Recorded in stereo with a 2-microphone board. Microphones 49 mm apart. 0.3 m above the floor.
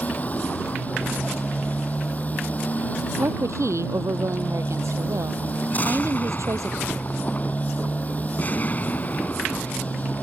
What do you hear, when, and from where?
0.0 s a motorcycle: 30° left (ahead or behind)
3.2 s a woman speaking: 85° right
5.7 s an explosion: 35° left (ahead or behind)